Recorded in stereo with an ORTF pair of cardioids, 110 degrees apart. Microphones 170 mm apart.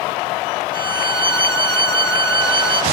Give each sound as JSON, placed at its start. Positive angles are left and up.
{"t": 0.7, "sound": "a violin", "azimuth_deg": -30, "distance_m": 1.6}